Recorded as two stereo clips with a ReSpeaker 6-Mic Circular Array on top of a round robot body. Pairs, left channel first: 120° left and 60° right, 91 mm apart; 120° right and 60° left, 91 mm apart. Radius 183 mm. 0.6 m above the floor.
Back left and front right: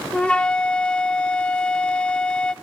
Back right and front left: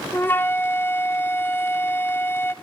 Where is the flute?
170° right, 1.3 m.